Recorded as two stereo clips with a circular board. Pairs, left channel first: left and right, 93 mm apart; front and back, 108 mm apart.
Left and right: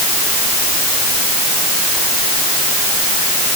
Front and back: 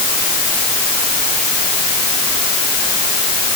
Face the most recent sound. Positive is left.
No sound to turn to.